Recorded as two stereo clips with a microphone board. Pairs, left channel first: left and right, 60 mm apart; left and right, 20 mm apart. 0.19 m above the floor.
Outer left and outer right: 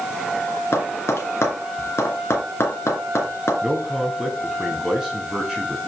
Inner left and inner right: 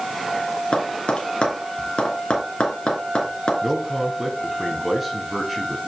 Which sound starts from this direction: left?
Tapping, at 0.7 s.